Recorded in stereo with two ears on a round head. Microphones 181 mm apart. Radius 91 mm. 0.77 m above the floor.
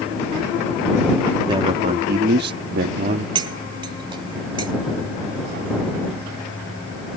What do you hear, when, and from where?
1.5 s a man speaking: 25° right (ahead or behind); by 3.2 s 40° right (ahead or behind)
3.4 s cutlery clinking: 25° right (ahead or behind)